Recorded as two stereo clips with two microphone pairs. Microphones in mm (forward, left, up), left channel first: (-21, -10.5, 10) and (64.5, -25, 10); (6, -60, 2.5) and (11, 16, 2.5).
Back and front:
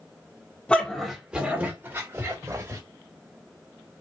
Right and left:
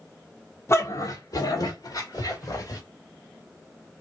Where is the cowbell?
I don't hear a cowbell.